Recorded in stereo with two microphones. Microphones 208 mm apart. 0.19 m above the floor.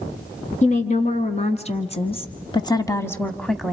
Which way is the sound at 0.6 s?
35° left (ahead or behind).